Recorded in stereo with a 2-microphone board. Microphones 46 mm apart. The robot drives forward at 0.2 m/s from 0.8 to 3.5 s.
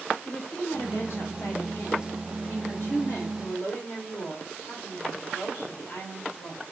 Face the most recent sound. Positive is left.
turn(degrees=60)  # may be behind; listen again after turning